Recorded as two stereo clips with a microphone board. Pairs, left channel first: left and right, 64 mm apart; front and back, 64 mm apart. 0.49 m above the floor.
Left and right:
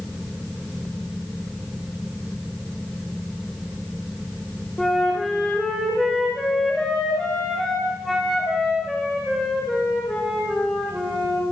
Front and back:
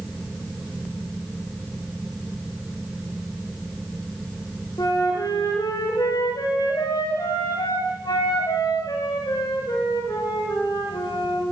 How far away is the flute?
About 10 m.